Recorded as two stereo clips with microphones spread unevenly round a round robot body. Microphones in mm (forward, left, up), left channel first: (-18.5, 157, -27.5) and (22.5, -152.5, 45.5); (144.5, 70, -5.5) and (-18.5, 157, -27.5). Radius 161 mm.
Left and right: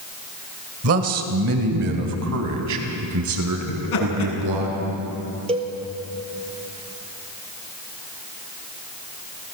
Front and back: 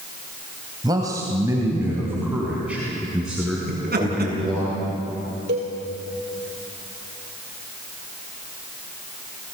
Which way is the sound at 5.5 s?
150° right.